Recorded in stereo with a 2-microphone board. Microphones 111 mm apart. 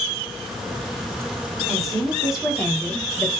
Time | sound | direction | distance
1.7 | a woman speaking | centre (ahead or behind) | 2 m